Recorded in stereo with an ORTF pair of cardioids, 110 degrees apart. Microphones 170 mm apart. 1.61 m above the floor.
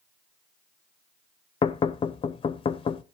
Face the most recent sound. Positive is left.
turn(degrees=30)